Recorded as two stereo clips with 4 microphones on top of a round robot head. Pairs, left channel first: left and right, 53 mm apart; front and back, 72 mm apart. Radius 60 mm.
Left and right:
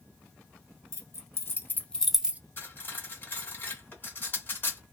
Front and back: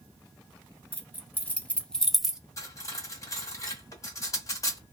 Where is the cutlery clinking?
40° left, 1.8 m.